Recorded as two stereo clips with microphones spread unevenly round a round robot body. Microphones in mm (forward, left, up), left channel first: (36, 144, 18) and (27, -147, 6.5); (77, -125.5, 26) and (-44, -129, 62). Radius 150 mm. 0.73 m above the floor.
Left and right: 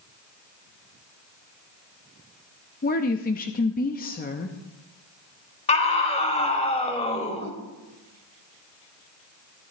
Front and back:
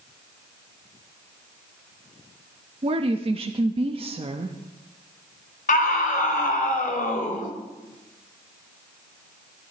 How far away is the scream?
About 3 m.